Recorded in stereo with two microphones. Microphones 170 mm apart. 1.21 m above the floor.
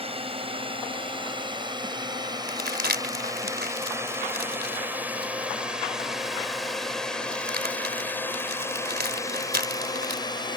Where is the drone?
35° right (ahead or behind); by 10.6 s 25° left (ahead or behind).